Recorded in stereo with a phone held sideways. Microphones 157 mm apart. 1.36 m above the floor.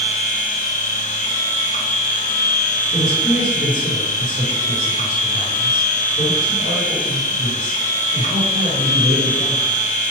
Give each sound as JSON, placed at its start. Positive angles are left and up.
{"t": 0.0, "sound": "a machine running", "side_deg": 55, "distance_m": 0.7}
{"t": 2.9, "sound": "a man speaking", "side_deg": 55, "distance_m": 1.0}